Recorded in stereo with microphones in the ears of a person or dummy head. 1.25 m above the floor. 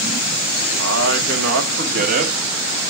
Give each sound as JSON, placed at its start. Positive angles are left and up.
{"t": 0.8, "sound": "a man speaking", "side_deg": -85, "distance_m": 1.2}